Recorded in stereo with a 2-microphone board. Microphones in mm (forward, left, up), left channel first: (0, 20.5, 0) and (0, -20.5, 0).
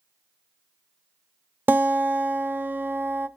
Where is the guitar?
60° right (ahead or behind), 0.5 m.